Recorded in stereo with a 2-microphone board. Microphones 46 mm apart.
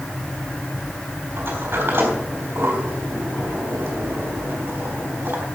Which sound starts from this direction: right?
A sliding door, at 1.4 s.